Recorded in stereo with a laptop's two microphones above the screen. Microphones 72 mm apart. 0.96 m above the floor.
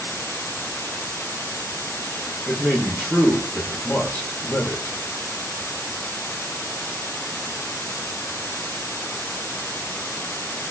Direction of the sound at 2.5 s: 15° left (ahead or behind).